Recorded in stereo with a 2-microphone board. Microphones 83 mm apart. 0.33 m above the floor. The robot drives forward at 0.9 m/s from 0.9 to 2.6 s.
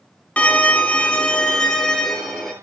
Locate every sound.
0.4 s a violin: 15° left (ahead or behind), 0.9 m; by 2.5 s 5° left (ahead or behind), 2.5 m